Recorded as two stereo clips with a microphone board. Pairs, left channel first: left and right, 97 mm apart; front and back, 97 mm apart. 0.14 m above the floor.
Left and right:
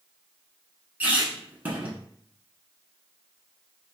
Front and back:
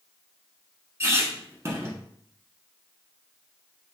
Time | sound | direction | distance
1.0 | a squeak | 150° right | 0.8 m